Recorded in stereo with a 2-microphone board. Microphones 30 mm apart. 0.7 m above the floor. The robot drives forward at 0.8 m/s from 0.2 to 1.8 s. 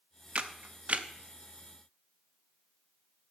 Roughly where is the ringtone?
I don't hear a ringtone.